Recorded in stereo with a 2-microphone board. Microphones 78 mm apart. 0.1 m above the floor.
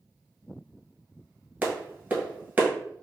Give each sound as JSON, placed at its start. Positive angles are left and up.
{"t": 1.6, "sound": "a clap", "side_deg": -25, "distance_m": 1.1}